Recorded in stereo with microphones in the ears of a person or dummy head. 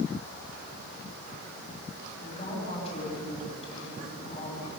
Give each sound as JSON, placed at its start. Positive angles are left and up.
{"t": 2.2, "sound": "a woman speaking", "side_deg": 35, "distance_m": 8.5}